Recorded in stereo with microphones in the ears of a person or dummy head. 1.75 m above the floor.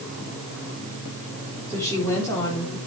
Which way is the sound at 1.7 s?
15° left (ahead or behind).